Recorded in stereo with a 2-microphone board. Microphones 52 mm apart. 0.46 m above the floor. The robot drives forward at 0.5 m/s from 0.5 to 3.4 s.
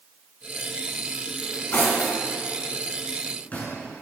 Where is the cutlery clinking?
45° left (ahead or behind), 2 m; by 3.8 s 30° left (ahead or behind), 3 m.